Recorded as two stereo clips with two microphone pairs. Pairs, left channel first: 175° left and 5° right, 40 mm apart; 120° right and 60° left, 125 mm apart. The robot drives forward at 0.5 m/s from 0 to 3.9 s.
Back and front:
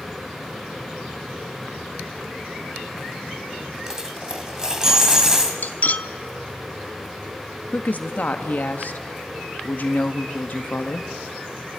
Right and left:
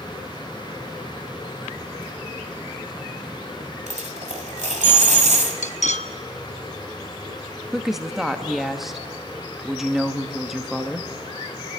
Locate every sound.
3.9 s a dropped coin: 70° left, 2.0 m; by 5.5 s 75° left, 2.0 m
5.6 s cutlery clinking: 135° right, 0.6 m
7.7 s a woman speaking: 150° left, 0.9 m